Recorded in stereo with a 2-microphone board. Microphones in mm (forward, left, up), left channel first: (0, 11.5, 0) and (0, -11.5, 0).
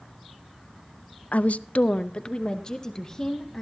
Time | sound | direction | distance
1.3 | a woman speaking | 70° left (ahead or behind) | 0.5 m